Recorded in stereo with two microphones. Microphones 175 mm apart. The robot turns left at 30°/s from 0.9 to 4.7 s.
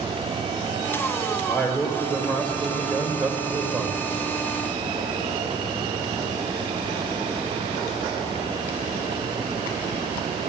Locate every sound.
1.5 s a man speaking: 15° left (ahead or behind), 1.5 m; by 4.0 s 10° right (ahead or behind), 1.5 m